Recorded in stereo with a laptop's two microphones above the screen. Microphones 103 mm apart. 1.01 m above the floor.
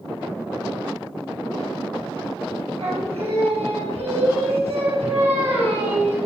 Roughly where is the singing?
Right.